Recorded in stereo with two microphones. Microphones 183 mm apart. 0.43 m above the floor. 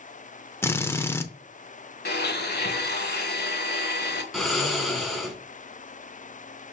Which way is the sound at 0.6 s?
15° left (ahead or behind).